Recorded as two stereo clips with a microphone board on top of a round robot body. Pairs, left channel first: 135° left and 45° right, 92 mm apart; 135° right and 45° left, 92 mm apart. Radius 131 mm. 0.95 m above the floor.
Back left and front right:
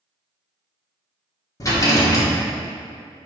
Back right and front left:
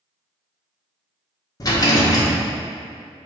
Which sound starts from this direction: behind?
A rattle, at 1.6 s.